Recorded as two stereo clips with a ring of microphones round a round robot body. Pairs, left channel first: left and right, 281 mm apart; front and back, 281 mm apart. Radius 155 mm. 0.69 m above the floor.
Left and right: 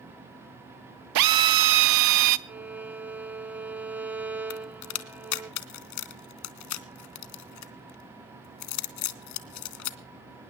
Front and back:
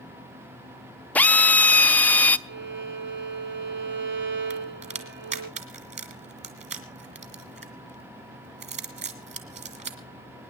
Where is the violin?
170° right, 1.4 m.